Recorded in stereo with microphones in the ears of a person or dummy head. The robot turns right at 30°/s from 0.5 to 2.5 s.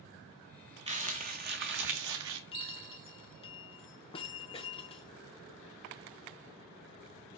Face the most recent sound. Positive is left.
turn(degrees=30)  # may be behind; listen again after turning